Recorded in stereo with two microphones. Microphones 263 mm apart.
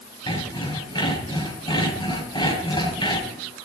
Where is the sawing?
15° left (ahead or behind), 5 m.